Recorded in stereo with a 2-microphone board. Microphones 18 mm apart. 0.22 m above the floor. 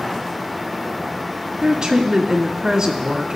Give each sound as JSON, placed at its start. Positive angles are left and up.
{"t": 1.6, "sound": "a woman speaking", "side_deg": -30, "distance_m": 1.4}